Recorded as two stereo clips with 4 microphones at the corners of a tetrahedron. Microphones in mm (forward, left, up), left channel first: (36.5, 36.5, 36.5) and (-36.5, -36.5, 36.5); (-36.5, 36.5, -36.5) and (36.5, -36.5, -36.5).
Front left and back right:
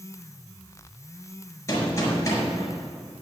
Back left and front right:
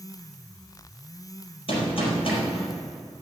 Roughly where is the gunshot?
Left.